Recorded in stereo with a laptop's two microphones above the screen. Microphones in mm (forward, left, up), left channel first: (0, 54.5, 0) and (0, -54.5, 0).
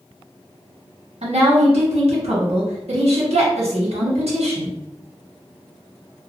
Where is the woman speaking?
75° right (ahead or behind), 1.2 m.